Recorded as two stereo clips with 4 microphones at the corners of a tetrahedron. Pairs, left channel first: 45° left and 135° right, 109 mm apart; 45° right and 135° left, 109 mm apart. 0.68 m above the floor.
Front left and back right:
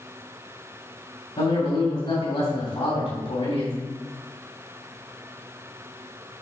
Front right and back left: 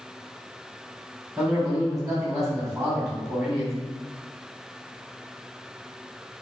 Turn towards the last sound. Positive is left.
turn(degrees=50)